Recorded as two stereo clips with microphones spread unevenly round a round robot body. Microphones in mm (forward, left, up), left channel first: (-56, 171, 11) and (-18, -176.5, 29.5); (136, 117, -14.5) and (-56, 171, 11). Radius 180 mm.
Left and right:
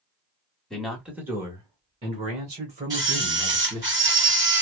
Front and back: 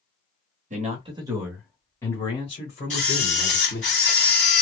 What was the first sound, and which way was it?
A man speaking, straight behind.